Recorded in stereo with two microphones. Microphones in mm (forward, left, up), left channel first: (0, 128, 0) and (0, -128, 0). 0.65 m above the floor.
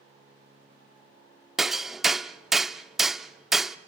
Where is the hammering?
Centre (ahead or behind), 0.6 m.